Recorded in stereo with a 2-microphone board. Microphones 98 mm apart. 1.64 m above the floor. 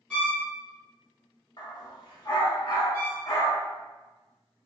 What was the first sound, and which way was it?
A violin, 10° left (ahead or behind).